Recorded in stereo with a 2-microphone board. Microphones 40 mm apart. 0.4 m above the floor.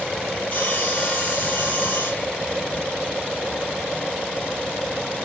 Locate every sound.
0.5 s sawing: 35° left (ahead or behind), 5 m